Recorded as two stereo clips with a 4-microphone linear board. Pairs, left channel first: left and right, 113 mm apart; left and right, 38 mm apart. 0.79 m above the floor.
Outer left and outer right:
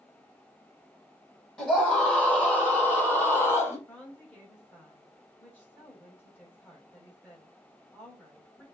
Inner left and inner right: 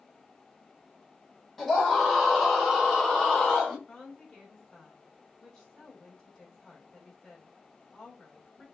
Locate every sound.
1.6 s a scream: 10° left (ahead or behind), 4.5 m; by 3.8 s 20° left (ahead or behind), 3 m
3.9 s a woman speaking: 15° left (ahead or behind), 4.5 m